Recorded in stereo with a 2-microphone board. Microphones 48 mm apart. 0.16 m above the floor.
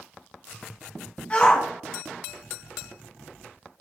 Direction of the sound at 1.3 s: 25° left (ahead or behind).